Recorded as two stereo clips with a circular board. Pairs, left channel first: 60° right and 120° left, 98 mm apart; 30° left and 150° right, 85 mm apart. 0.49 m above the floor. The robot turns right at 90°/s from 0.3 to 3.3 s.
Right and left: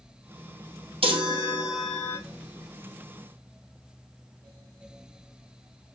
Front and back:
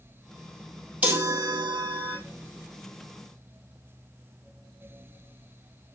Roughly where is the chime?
Behind left.